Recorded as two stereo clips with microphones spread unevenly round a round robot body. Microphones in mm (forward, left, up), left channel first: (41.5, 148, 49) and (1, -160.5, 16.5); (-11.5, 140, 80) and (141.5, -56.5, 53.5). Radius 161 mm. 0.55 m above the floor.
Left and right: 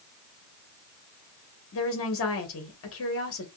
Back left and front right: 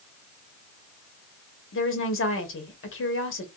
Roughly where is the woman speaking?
Behind left.